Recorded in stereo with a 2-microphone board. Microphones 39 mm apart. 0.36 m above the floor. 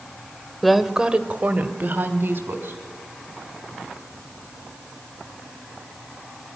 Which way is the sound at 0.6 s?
5° left (ahead or behind).